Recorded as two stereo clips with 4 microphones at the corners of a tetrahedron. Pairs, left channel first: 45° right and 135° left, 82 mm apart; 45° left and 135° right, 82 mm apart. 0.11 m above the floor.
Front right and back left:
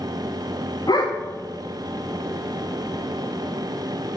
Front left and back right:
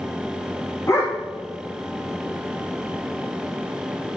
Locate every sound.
0.9 s a dog barking: 10° right, 4 m